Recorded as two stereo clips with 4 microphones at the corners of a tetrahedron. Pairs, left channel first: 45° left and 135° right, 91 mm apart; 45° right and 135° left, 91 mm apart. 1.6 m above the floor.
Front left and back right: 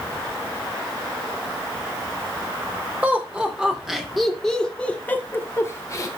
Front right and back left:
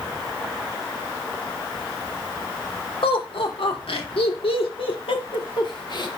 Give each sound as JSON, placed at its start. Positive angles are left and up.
{"t": 3.0, "sound": "laughter", "azimuth_deg": -60, "distance_m": 2.5}